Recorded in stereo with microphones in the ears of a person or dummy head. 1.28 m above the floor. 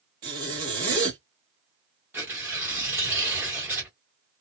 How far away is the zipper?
About 1.1 m.